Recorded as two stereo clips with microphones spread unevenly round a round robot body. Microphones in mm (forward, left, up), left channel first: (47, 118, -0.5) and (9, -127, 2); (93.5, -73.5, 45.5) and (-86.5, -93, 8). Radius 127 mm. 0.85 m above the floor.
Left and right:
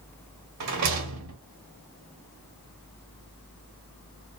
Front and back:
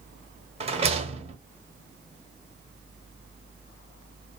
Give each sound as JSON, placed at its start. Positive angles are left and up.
{"t": 0.6, "sound": "a rattle", "azimuth_deg": -110, "distance_m": 1.0}